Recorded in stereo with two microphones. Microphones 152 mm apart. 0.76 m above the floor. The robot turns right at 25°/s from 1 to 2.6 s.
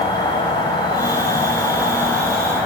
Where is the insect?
140° left, 0.7 m; by 2.7 s straight behind, 0.7 m.